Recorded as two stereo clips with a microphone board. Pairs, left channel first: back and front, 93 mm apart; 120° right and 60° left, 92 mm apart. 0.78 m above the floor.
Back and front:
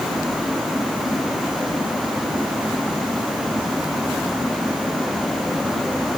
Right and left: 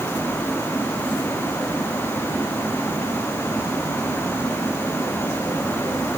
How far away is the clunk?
No clunk in this recording.